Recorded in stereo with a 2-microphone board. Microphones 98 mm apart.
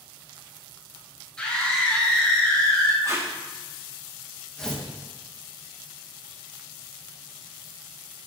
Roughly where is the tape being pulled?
Right.